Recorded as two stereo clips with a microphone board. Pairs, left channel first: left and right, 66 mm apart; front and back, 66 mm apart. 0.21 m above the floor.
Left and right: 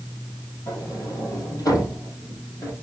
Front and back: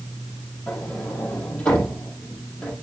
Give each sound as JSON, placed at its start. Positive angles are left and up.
{"t": 0.7, "sound": "a sliding door", "azimuth_deg": 70, "distance_m": 4.0}